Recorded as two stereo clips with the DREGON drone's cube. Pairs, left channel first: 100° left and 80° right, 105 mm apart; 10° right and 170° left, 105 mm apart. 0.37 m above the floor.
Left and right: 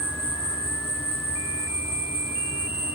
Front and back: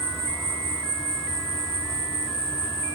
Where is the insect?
75° left, 2.5 m.